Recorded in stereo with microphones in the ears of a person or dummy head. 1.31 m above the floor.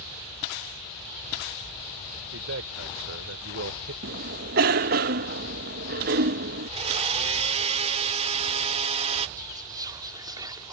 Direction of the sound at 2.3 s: 85° right.